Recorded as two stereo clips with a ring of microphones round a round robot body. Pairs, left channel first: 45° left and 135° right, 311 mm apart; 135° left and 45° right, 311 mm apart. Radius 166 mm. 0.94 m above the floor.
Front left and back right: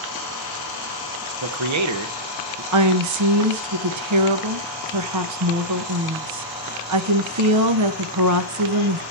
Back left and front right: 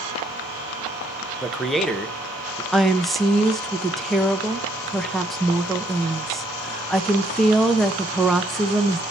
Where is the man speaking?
135° right, 0.9 m.